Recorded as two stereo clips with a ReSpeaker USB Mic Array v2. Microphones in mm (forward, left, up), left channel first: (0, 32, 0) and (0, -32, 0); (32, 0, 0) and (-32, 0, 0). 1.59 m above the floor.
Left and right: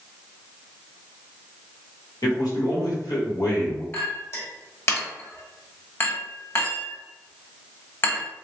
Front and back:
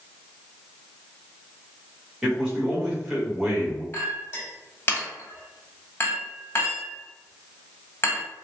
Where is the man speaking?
105° left, 1.5 m.